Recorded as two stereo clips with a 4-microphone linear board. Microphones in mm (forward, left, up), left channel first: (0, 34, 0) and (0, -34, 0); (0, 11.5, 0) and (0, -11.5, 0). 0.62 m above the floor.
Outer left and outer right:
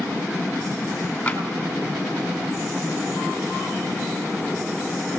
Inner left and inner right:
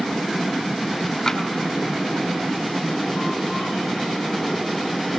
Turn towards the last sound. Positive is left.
turn(degrees=15)  # may be behind; listen again after turning